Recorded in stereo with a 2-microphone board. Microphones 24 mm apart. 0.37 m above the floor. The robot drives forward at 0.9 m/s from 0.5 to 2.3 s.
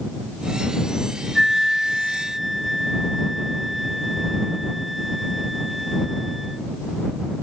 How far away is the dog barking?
No dog barking in this recording.